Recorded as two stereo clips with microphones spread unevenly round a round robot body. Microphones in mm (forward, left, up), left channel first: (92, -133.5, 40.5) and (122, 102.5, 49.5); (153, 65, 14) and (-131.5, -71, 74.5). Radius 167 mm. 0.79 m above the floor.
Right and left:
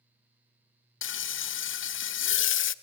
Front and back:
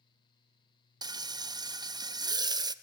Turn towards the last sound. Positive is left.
turn(degrees=-70)